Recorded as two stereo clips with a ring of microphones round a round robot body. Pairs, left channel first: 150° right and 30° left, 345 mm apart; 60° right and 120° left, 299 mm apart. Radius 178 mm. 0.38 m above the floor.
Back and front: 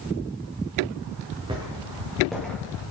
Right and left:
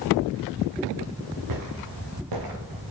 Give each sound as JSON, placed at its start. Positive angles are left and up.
{"t": 1.5, "sound": "footsteps", "azimuth_deg": 105, "distance_m": 2.0}